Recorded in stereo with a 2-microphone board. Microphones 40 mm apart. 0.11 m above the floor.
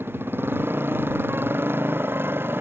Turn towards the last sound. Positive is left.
turn(degrees=-70)  # may be behind; listen again after turning